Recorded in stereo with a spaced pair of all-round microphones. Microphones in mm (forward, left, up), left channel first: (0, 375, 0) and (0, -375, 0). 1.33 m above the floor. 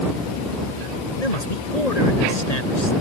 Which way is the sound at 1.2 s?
55° left (ahead or behind).